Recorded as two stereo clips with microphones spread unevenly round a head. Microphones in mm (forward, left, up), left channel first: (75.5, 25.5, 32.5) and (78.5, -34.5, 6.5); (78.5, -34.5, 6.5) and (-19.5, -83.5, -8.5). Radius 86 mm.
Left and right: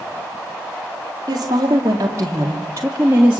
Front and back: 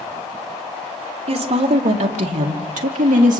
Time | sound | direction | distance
1.3 | a woman speaking | 135° right | 2.5 m